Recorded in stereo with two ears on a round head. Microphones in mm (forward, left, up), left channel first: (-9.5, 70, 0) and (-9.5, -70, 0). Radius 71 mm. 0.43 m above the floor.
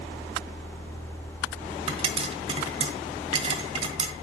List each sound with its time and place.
1.9 s a pop: 40° right (ahead or behind), 1.4 m